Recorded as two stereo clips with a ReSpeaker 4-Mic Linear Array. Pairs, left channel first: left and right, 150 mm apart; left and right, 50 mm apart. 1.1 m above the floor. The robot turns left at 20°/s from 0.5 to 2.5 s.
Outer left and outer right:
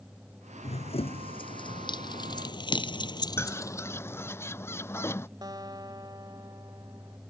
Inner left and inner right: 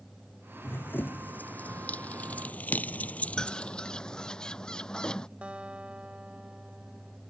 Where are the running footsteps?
50° left (ahead or behind); by 4.4 s 10° left (ahead or behind).